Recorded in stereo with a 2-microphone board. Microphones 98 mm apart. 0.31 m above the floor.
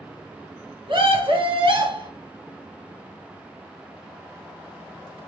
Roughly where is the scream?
Right.